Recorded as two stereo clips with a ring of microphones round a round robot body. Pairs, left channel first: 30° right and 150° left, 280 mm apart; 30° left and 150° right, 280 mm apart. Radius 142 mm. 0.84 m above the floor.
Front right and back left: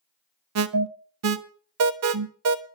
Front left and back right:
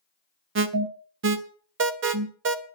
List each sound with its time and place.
0.6 s an alarm: 170° left, 1.2 m